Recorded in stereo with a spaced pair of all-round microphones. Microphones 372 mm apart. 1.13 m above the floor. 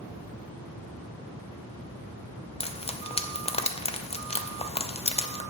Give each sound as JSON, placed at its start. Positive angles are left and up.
{"t": 2.6, "sound": "frying", "side_deg": 15, "distance_m": 0.6}